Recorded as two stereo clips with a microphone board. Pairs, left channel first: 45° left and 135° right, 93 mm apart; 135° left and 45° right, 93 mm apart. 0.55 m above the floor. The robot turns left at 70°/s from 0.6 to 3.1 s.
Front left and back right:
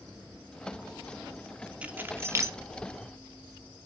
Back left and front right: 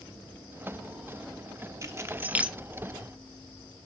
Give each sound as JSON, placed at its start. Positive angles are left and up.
{"t": 1.8, "sound": "keys jangling", "azimuth_deg": -70, "distance_m": 0.8}